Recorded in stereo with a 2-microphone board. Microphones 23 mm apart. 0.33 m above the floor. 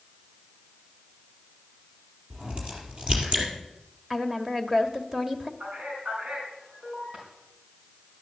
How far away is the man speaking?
About 4 m.